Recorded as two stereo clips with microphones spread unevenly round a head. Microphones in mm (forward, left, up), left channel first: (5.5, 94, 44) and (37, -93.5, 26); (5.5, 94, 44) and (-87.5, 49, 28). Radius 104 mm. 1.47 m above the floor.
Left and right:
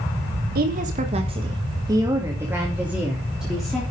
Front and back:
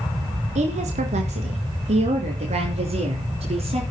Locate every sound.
0.6 s a woman speaking: 130° right, 1.5 m; by 3.8 s 170° right, 3.5 m